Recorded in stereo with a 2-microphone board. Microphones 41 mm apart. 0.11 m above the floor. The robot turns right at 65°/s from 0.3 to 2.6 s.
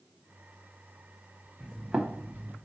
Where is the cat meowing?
No cat meowing in this recording.